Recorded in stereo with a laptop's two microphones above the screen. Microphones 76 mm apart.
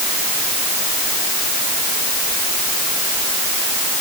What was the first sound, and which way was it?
Only background noise.